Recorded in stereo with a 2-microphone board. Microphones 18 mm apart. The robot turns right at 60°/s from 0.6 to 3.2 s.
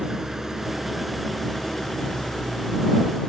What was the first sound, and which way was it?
An engine running, 25° right.